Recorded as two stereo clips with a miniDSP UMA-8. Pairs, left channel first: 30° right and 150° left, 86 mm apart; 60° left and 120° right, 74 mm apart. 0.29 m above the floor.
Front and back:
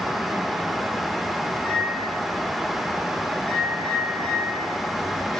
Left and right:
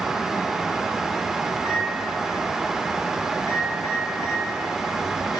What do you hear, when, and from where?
1.5 s a microwave: 50° left, 2.5 m